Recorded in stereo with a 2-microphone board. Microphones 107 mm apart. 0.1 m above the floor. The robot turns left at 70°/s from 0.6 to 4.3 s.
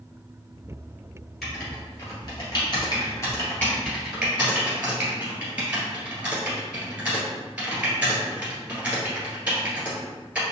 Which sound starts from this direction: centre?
Writing, at 1.4 s.